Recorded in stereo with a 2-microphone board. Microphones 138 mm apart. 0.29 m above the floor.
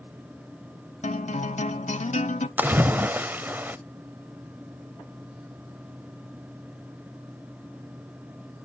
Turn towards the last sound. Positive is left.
turn(degrees=-15)  # may be behind; listen again after turning